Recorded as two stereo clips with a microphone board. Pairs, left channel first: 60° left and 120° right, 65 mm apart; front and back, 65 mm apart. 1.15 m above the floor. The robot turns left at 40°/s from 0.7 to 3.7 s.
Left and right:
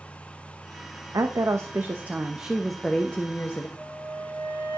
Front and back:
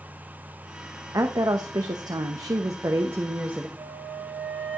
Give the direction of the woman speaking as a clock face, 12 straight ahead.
5 o'clock.